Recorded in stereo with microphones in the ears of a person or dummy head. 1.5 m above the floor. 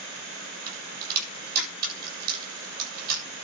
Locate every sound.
0.7 s a crack: 50° right (ahead or behind), 8 m